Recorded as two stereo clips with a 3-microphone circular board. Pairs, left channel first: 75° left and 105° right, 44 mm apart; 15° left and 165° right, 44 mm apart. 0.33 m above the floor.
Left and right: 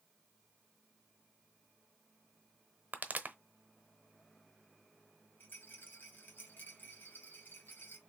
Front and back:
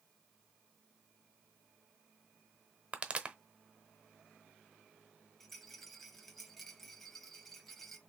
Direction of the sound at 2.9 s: 120° right.